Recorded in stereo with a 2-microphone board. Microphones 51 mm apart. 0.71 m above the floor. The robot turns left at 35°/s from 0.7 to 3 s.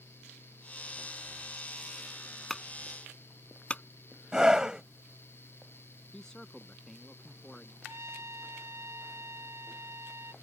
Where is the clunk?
10° left (ahead or behind); by 3.8 s 25° left (ahead or behind).